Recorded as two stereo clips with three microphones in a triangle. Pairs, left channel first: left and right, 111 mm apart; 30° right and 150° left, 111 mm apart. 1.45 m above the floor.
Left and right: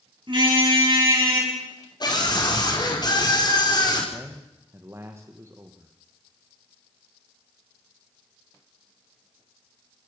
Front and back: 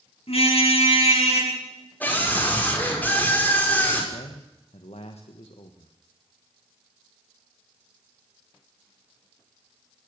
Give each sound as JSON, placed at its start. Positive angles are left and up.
{"t": 0.3, "sound": "a car horn", "azimuth_deg": -50, "distance_m": 8.0}
{"t": 2.0, "sound": "a scream", "azimuth_deg": 45, "distance_m": 5.0}
{"t": 4.1, "sound": "a man speaking", "azimuth_deg": -25, "distance_m": 1.4}